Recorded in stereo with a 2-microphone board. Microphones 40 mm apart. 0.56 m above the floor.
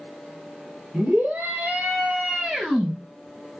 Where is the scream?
45° right (ahead or behind), 1.7 m; by 2.9 s 15° right (ahead or behind), 1.2 m.